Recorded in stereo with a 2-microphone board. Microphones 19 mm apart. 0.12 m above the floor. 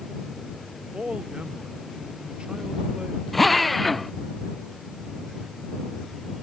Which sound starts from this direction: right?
A man speaking, at 0.9 s.